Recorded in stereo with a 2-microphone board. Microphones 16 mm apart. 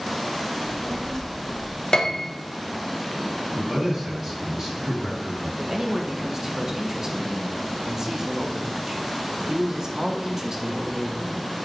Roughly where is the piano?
Left.